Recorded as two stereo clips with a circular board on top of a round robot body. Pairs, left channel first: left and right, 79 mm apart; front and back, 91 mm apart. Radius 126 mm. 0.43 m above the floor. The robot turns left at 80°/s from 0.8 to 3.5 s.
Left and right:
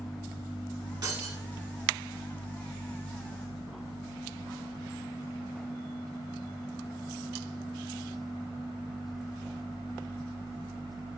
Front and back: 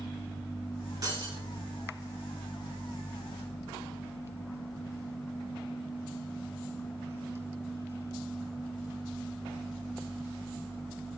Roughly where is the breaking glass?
Behind right.